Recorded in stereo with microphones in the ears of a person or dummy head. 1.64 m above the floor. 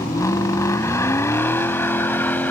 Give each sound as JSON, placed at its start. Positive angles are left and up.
{"t": 0.0, "sound": "a vehicle", "side_deg": 15}